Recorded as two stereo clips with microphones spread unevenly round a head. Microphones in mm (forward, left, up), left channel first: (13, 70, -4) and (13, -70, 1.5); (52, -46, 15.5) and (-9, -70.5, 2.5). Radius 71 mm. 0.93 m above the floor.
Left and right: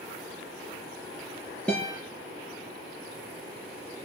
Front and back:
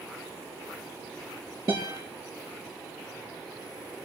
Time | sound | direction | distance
1.7 | a guitar | 175° left | 5 m